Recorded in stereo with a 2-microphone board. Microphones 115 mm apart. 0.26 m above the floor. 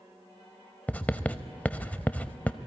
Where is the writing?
15° left (ahead or behind), 0.6 m.